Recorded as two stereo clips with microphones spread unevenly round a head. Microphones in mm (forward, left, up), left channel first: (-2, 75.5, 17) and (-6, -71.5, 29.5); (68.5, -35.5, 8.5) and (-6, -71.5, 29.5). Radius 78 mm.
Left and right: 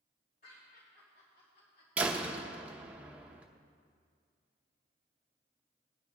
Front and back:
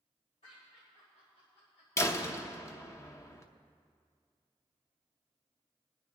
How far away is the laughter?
About 3.5 m.